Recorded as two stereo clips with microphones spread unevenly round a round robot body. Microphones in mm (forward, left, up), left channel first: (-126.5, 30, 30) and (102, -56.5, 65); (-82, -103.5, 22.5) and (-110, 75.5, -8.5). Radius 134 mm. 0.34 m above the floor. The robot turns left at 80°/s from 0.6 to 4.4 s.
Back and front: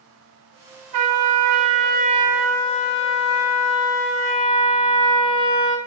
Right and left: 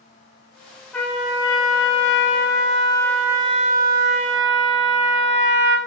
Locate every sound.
0.9 s a trumpet: 5° left, 1.4 m; by 5.8 s 90° left, 1.4 m